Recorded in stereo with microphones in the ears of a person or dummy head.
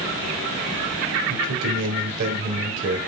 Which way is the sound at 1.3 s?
65° right (ahead or behind).